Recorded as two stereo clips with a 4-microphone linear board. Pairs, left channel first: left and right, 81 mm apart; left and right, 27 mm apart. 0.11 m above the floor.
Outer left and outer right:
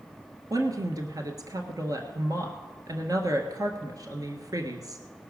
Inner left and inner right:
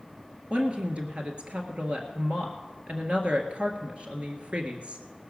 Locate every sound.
0.5 s a woman speaking: 45° right (ahead or behind), 1.5 m